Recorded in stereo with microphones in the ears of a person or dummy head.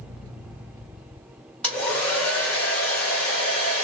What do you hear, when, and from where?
1.6 s a hair dryer: 5° left (ahead or behind), 1.4 m